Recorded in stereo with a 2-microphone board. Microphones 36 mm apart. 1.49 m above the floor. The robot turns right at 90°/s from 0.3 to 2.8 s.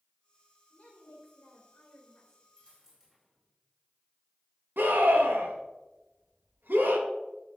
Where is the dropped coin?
30° right (ahead or behind), 2.5 m; by 3.5 s 10° right (ahead or behind), 2.5 m.